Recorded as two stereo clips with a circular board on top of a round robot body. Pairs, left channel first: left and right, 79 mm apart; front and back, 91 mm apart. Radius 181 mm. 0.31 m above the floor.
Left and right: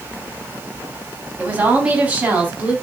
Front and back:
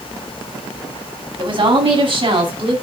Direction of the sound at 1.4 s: 160° right.